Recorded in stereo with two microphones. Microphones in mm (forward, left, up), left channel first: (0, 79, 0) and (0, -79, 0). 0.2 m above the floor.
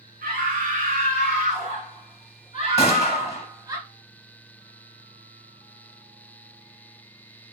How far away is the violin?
No violin in this recording.